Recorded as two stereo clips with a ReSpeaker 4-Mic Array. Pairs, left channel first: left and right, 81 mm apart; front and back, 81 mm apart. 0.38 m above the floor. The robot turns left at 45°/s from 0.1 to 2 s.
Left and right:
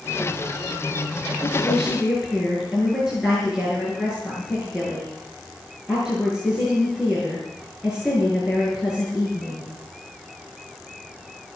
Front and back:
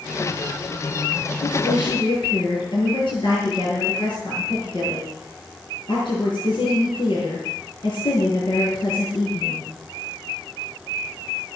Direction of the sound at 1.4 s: 20° left.